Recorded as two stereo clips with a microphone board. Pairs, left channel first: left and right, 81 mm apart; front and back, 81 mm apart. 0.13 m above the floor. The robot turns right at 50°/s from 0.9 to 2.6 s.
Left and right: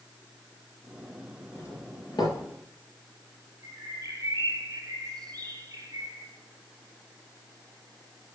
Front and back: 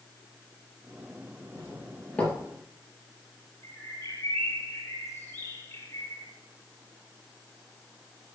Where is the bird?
45° right, 3 m.